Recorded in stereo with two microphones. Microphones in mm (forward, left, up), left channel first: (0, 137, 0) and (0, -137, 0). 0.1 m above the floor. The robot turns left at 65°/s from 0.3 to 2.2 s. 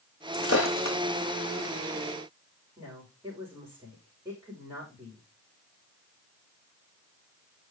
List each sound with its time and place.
0.3 s breaking glass: 50° left (ahead or behind), 1.6 m; by 1.0 s 80° left, 1.6 m
2.8 s a woman speaking: 10° right (ahead or behind), 7.5 m